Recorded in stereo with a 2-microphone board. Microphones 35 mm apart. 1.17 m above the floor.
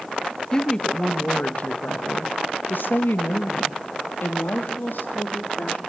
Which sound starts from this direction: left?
A woman speaking, at 0.5 s.